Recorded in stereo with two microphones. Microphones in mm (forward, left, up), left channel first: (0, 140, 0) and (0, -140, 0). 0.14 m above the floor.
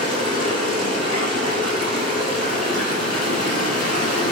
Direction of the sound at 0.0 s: 70° left (ahead or behind).